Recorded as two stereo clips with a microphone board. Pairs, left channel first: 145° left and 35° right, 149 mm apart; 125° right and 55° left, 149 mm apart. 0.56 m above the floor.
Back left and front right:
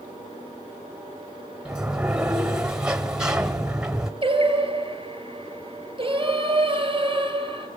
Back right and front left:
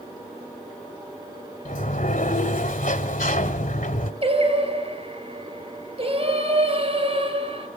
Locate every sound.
1.6 s a sliding door: 120° right, 1.3 m
4.2 s singing: 15° left, 3.5 m